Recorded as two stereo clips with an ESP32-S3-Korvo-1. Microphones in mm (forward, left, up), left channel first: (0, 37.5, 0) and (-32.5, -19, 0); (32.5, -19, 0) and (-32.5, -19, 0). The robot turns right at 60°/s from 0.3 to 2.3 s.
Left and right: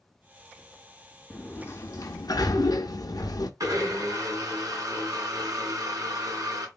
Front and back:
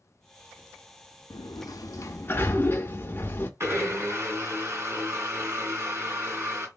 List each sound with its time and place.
1.3 s a sliding door: 10° right, 0.5 m; by 3.5 s 50° left, 0.5 m
3.6 s a blender: 140° right, 2 m